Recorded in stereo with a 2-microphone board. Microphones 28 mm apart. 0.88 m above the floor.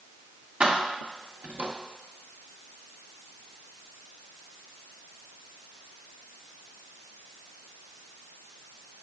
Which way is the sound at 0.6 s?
45° right (ahead or behind).